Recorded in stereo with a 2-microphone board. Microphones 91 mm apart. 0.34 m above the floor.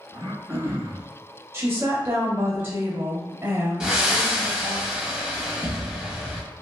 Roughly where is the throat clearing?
Right.